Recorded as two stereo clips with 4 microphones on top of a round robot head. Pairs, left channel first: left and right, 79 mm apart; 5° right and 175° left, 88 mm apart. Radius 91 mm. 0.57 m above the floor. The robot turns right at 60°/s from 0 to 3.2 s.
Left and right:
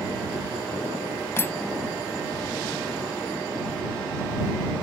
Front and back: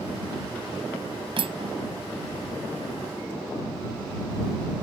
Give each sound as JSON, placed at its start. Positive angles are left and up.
{"t": 1.4, "sound": "cutlery clinking", "azimuth_deg": 150}